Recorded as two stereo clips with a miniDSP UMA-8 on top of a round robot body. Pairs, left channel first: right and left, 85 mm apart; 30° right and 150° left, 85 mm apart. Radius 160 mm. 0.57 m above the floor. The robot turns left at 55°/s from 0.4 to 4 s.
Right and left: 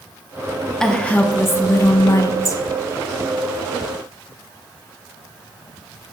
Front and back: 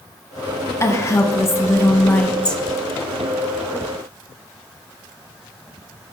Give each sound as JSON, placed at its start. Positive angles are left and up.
{"t": 0.8, "sound": "a woman speaking", "azimuth_deg": -10, "distance_m": 0.7}